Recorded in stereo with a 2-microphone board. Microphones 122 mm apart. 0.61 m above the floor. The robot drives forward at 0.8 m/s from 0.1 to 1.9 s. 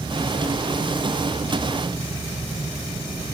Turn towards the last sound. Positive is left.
No sound to turn to.